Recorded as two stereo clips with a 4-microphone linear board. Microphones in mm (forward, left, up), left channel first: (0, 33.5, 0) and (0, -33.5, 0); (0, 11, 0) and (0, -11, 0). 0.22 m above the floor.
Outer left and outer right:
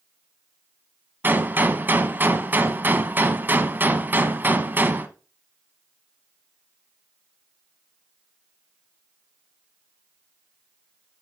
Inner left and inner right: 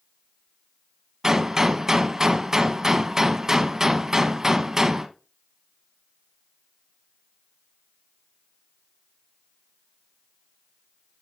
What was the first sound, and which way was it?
A gunshot, 30° right (ahead or behind).